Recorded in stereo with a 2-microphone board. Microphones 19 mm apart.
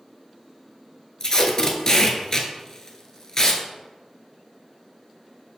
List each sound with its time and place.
1.2 s tape being pulled: 25° left (ahead or behind), 0.7 m